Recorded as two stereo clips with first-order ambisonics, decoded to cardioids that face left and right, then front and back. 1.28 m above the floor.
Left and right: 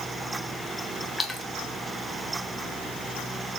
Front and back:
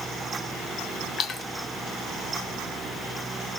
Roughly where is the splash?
Ahead.